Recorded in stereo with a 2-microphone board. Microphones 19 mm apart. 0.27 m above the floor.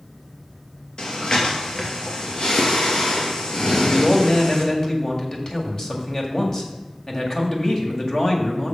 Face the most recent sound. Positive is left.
turn(degrees=30)  # may be behind; listen again after turning